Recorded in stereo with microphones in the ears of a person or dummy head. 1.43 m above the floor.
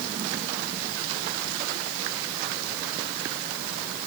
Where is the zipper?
I don't hear a zipper.